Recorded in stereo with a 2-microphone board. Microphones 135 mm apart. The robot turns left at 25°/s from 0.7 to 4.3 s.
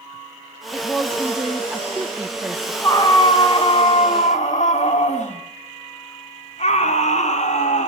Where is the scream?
155° left, 1.8 m; by 7.9 s 120° left, 1.8 m.